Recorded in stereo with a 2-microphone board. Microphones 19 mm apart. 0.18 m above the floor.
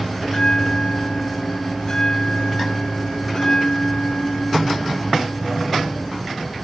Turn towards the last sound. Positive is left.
turn(degrees=40)  # may be behind; listen again after turning